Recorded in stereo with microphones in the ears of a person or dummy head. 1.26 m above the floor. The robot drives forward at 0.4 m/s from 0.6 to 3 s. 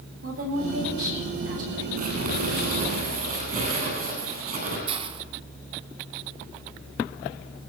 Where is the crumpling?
55° right (ahead or behind), 9 m.